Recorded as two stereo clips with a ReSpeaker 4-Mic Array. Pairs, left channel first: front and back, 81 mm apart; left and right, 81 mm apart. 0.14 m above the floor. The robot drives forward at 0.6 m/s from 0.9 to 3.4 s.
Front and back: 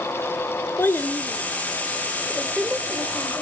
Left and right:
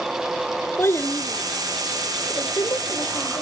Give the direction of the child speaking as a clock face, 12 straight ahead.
10 o'clock.